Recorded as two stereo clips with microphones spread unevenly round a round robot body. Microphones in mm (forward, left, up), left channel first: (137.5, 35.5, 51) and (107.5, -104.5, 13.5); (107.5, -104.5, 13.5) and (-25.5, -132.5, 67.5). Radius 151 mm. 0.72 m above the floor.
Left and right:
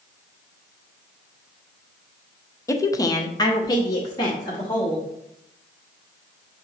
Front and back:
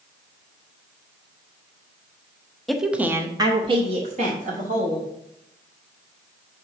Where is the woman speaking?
5° left, 0.7 m; by 5.0 s 155° left, 1.2 m.